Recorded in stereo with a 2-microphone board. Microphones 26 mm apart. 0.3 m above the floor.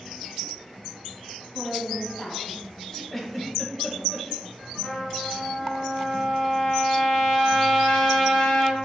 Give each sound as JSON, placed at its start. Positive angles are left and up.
{"t": 1.5, "sound": "a woman speaking", "side_deg": 30, "distance_m": 1.9}
{"t": 3.1, "sound": "a giggle", "side_deg": 5, "distance_m": 0.8}
{"t": 4.8, "sound": "a trumpet", "side_deg": 40, "distance_m": 1.8}